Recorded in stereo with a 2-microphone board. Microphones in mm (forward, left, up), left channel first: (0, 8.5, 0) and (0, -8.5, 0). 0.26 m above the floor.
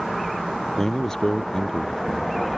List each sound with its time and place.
0.8 s a man speaking: 40° left (ahead or behind)